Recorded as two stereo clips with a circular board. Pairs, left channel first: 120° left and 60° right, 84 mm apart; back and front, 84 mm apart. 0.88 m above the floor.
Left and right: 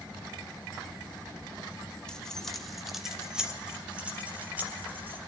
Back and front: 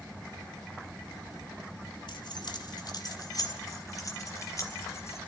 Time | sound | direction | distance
2.1 | keys jangling | 160° right | 1.9 m